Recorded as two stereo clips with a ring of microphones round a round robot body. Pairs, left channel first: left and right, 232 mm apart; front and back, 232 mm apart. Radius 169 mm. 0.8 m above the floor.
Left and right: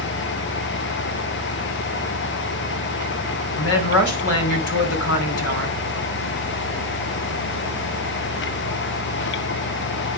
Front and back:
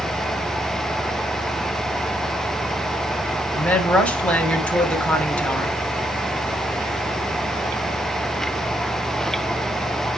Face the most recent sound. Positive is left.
turn(degrees=85)